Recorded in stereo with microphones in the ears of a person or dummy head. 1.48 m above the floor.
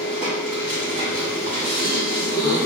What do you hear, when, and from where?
0.0 s a machine running: 30° right (ahead or behind), 1.0 m
1.6 s a gasp: 15° left (ahead or behind), 1.4 m